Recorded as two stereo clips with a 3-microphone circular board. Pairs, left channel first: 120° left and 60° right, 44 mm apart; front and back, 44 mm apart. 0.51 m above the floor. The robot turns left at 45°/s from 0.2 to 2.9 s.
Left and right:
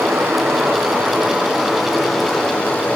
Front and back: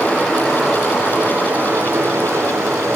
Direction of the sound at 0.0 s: 75° right.